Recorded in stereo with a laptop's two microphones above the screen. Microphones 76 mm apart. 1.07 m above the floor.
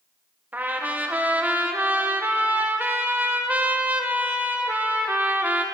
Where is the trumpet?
25° right (ahead or behind), 0.9 m.